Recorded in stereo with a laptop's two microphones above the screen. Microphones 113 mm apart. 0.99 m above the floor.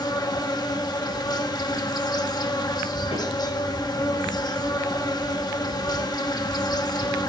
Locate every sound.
0.0 s an insect: 40° left (ahead or behind), 0.9 m
3.1 s a snare drum: 85° left, 7.5 m